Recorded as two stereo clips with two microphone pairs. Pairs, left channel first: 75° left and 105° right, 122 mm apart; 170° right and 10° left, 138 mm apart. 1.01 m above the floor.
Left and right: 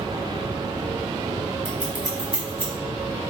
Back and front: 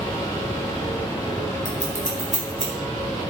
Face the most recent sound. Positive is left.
turn(degrees=-25)